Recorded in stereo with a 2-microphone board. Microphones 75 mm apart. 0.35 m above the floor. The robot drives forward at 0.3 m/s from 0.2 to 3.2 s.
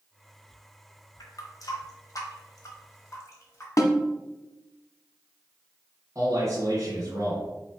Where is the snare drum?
50° left (ahead or behind), 0.7 m.